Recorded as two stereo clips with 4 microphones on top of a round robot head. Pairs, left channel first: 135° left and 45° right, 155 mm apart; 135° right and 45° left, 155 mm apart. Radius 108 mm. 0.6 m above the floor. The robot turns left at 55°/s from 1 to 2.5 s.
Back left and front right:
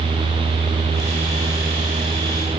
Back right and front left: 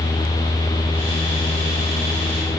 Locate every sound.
Only background noise.